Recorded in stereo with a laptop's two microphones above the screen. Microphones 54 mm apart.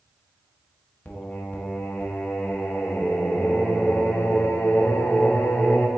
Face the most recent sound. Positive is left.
turn(degrees=35)  # may be behind; listen again after turning